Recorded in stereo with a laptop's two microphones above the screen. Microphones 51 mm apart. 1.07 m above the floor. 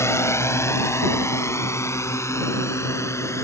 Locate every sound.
0.0 s a drone: 60° left (ahead or behind); by 3.5 s 65° left (ahead or behind)